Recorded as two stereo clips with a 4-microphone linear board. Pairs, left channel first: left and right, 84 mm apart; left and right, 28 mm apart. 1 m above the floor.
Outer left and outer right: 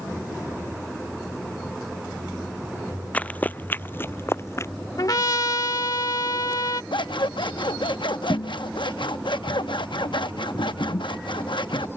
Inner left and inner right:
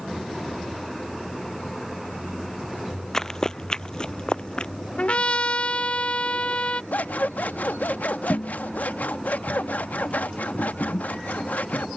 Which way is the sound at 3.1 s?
15° left (ahead or behind).